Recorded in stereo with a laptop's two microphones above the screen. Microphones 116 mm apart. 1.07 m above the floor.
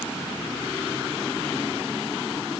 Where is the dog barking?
No dog barking in this recording.